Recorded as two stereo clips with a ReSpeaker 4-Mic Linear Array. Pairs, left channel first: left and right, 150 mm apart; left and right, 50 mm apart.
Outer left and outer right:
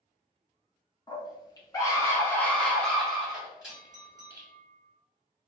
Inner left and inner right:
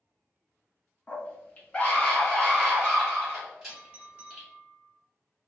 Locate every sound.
1.1 s a scream: 30° left (ahead or behind), 1.2 m; by 4.5 s 15° right (ahead or behind), 1.7 m
3.7 s a clink: 25° right (ahead or behind), 1.2 m